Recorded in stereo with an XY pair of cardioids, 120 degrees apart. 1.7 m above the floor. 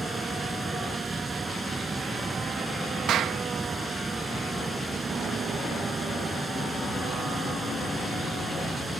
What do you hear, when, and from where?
0.0 s running water: 20° right
3.1 s a clap: 65° right